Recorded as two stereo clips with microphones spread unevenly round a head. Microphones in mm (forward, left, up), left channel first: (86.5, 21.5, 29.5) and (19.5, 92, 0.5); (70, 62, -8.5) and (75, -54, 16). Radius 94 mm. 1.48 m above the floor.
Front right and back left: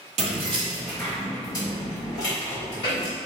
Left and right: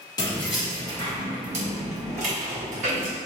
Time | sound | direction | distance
0.2 | keys jangling | 165° left | 0.7 m